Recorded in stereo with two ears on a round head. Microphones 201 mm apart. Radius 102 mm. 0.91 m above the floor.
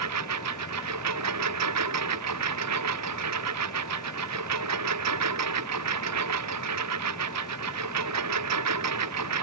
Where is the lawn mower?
85° right.